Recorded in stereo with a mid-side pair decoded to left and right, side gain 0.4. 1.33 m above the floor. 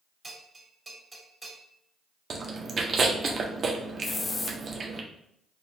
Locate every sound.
0.2 s a bell: 30° right, 2 m
2.3 s chewing: 50° right, 0.8 m
4.0 s a hiss: 35° left, 0.6 m